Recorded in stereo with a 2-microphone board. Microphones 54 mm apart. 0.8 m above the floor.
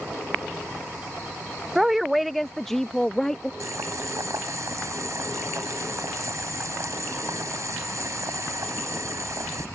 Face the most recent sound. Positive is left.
turn(degrees=-65)  # may be behind; listen again after turning